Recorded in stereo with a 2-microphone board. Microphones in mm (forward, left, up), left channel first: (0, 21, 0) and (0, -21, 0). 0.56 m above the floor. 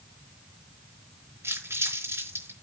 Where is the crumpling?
60° right (ahead or behind), 4.5 m.